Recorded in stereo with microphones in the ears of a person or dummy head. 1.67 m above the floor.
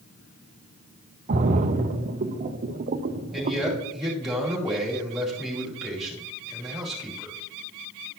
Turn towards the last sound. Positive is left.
turn(degrees=0)  # may be behind; listen again after turning